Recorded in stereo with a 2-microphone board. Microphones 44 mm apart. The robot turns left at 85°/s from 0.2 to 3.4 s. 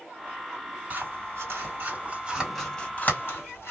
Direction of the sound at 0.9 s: 40° right (ahead or behind).